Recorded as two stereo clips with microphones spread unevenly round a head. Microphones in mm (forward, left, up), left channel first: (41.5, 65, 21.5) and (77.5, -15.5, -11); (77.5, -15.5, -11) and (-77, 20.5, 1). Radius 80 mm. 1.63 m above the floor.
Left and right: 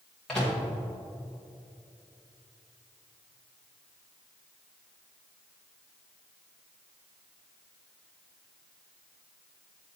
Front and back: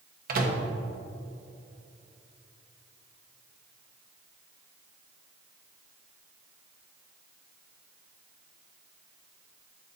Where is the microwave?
170° right, 1.4 m.